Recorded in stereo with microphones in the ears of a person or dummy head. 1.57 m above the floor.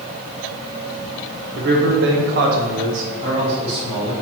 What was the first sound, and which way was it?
A man speaking, 55° right (ahead or behind).